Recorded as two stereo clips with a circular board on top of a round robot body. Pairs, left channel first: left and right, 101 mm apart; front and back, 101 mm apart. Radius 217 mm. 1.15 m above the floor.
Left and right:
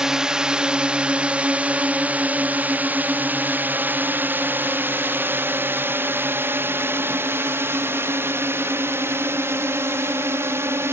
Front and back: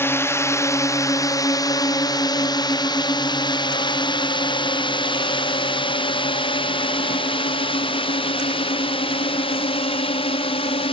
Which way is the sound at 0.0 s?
15° right.